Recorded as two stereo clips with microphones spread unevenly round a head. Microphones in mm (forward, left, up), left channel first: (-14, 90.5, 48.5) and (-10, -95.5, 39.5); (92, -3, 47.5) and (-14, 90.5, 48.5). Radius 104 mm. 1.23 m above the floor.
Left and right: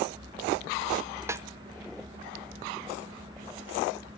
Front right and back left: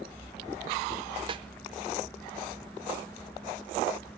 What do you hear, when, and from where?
1.3 s a snare drum: 165° right, 0.8 m